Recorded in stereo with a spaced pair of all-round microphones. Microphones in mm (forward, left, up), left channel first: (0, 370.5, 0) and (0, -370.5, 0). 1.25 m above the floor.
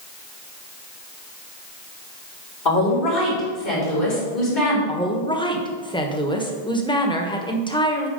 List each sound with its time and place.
2.6 s a woman speaking: 85° left, 3.5 m
4.9 s a woman speaking: 5° left (ahead or behind), 1.1 m